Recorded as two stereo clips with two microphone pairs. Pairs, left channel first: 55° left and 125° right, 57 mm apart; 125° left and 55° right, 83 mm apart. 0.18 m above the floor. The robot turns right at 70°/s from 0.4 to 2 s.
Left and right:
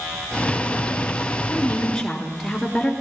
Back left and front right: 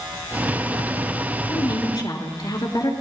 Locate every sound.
1.5 s a woman speaking: 100° left, 3 m; by 2.9 s 135° left, 3 m